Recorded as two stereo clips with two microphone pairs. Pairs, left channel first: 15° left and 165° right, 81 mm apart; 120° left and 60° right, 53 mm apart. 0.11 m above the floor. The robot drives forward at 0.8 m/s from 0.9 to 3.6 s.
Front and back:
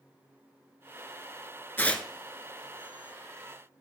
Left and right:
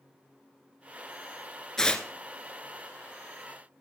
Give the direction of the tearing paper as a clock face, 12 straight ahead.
10 o'clock.